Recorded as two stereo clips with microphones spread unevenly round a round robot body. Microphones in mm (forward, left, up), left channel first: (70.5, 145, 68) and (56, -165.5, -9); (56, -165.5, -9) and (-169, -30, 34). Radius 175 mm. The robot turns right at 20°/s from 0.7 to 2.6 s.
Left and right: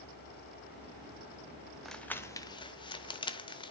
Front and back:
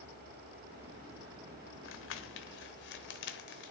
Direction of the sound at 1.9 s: 10° right.